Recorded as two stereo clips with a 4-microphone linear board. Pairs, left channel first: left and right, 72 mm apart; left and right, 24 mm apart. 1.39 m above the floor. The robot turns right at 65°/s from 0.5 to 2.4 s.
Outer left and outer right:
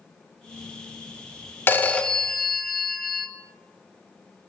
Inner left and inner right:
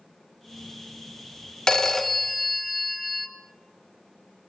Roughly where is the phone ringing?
Behind left.